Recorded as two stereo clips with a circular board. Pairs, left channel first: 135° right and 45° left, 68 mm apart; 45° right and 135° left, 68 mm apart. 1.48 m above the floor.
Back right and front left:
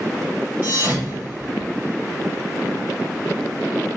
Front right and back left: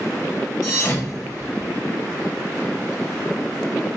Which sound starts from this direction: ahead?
A thud, at 0.6 s.